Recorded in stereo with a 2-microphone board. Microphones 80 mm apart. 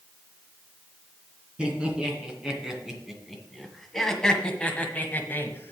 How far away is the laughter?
About 2.5 m.